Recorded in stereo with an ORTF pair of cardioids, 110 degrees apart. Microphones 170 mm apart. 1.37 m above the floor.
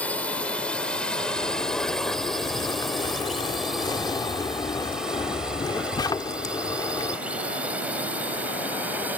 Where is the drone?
10° left; by 9.2 s 10° right.